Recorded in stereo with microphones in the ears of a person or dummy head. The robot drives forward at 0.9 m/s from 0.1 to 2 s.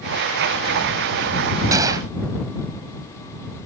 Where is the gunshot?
20° right (ahead or behind).